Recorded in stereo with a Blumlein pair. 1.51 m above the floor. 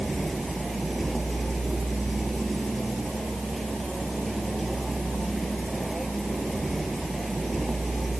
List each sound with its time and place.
0.0 s a vehicle: 5° right